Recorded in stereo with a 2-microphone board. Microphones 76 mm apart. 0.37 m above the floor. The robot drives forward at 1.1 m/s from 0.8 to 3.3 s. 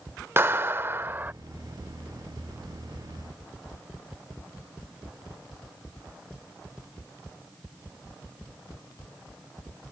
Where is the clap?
30° right (ahead or behind); by 1.3 s 25° right (ahead or behind).